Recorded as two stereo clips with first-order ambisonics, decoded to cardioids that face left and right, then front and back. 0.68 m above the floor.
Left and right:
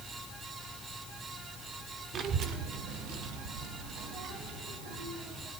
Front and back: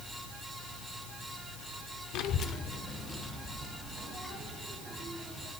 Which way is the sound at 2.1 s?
30° right.